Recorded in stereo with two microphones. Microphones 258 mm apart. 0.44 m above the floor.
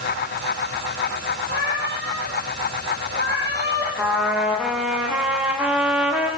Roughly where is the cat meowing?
Right.